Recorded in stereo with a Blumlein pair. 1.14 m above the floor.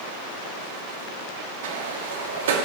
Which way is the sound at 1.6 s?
60° right.